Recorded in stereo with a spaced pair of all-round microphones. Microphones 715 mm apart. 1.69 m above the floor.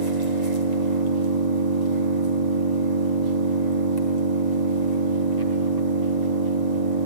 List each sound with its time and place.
0.0 s an engine running: 65° right (ahead or behind), 4.5 m